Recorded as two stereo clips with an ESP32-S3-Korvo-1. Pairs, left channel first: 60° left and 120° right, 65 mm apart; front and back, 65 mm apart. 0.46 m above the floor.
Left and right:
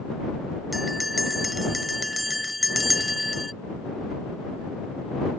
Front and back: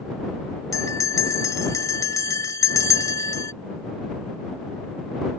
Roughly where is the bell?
Ahead right.